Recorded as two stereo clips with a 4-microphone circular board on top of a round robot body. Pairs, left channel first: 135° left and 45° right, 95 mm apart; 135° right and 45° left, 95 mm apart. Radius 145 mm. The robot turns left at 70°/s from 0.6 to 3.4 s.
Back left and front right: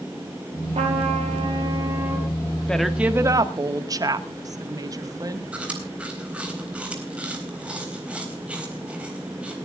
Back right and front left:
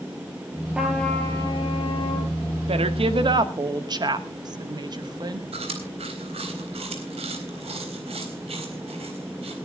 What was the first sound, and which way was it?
A trumpet, 35° right.